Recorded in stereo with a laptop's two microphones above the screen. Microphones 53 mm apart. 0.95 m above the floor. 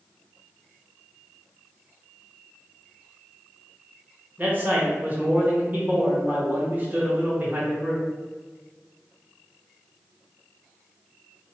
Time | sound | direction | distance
4.4 | a man speaking | 30° right (ahead or behind) | 1.1 m